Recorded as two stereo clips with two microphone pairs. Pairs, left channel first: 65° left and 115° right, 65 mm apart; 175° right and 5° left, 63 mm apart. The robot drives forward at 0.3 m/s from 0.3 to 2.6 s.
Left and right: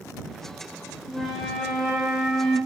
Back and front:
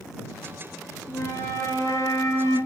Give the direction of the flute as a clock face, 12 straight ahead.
6 o'clock.